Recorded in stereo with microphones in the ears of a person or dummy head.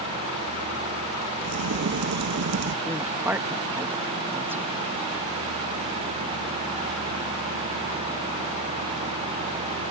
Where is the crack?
55° right (ahead or behind).